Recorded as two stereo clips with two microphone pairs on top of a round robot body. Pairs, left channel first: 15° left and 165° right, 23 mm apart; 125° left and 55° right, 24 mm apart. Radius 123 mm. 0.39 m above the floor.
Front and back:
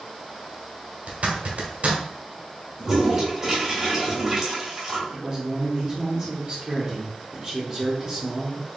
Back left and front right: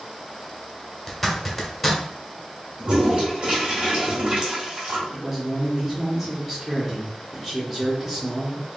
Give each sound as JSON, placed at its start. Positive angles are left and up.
{"t": 1.1, "sound": "a zipper", "azimuth_deg": -145, "distance_m": 1.3}
{"t": 2.8, "sound": "a toilet flushing", "azimuth_deg": -90, "distance_m": 2.0}
{"t": 5.1, "sound": "a man speaking", "azimuth_deg": -115, "distance_m": 1.5}